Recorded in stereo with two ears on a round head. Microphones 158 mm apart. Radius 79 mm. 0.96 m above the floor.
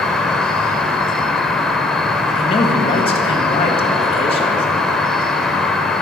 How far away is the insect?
About 0.7 m.